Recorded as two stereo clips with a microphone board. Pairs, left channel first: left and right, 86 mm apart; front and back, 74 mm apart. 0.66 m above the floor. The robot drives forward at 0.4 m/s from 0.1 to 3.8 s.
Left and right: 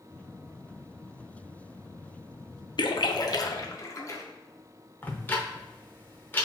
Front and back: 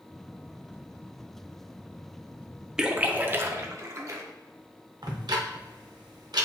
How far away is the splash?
About 0.5 m.